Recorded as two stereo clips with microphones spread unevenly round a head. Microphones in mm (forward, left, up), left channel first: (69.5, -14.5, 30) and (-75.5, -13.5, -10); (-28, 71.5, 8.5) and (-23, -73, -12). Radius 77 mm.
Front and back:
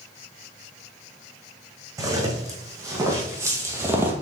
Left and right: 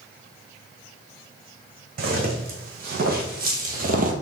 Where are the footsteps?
105° right, 2.5 m; by 4.1 s 95° right, 1.4 m.